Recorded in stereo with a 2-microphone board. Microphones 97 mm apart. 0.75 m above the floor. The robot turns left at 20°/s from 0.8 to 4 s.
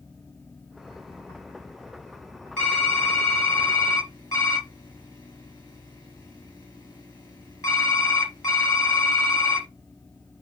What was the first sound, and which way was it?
Typing on a keyboard, 15° left (ahead or behind).